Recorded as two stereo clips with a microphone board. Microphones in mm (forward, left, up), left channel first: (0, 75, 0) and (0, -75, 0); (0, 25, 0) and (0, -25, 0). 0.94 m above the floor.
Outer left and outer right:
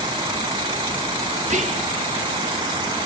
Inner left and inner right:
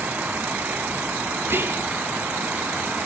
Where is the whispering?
50° right (ahead or behind), 2.5 m.